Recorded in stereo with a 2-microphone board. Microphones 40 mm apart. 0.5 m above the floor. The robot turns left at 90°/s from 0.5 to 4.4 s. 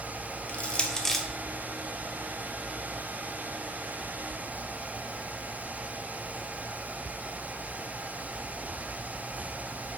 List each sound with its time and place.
0.5 s crushing: 35° left (ahead or behind), 0.8 m; by 1.2 s centre (ahead or behind), 0.8 m